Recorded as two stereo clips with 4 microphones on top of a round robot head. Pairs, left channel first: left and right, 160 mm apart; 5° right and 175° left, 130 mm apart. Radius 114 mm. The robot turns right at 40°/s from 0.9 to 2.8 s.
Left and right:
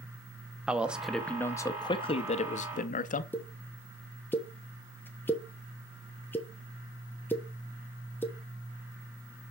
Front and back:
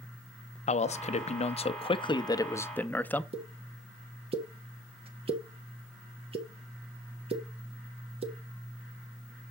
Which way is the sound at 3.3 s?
165° left.